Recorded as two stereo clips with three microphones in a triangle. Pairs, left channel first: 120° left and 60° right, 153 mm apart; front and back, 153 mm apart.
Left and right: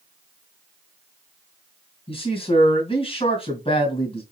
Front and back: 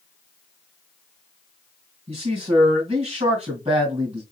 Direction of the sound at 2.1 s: 145° left.